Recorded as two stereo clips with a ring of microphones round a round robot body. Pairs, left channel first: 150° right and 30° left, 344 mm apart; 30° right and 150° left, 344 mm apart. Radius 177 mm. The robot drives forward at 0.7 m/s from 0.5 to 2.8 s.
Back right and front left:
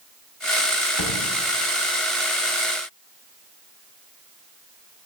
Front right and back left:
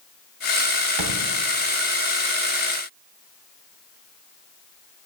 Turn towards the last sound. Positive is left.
turn(degrees=175)